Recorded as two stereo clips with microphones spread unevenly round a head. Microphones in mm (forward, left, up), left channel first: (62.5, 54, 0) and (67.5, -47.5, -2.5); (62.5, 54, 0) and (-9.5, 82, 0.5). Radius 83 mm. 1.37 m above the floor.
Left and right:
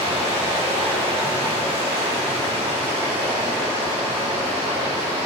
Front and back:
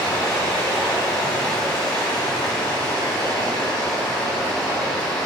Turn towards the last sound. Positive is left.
turn(degrees=-80)